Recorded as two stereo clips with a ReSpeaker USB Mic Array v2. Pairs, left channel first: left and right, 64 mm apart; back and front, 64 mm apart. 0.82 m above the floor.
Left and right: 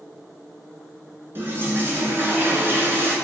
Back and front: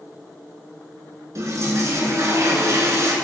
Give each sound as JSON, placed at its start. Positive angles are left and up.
{"t": 1.4, "sound": "a toilet flushing", "azimuth_deg": -35, "distance_m": 2.0}